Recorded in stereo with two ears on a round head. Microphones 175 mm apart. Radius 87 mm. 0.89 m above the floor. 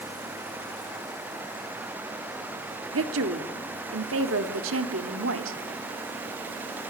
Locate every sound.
2.9 s a woman speaking: 80° right, 1.9 m